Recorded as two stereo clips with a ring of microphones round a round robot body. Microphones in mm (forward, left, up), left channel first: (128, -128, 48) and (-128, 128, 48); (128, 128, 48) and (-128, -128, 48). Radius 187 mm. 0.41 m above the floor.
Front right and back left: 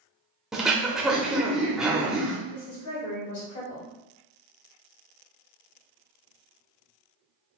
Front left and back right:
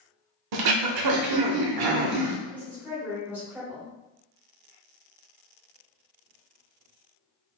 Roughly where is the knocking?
No knocking in this recording.